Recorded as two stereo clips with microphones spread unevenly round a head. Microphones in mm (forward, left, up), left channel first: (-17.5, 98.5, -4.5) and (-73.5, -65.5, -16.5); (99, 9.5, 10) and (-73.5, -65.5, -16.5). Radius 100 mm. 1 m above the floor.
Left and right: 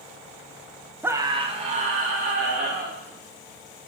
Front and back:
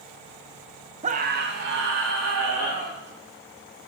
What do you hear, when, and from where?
1.0 s a scream: straight behind, 0.8 m; by 3.0 s 150° right, 3 m